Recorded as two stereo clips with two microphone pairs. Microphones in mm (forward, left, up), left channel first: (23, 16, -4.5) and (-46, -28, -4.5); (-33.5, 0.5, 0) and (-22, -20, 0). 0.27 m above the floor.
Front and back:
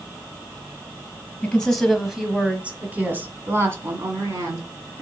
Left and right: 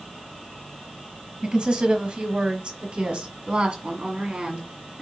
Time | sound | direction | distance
1.4 | a woman speaking | 40° right | 1.2 m